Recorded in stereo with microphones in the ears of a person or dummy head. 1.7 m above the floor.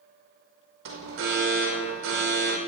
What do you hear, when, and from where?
0.8 s an alarm: 60° right (ahead or behind), 5.5 m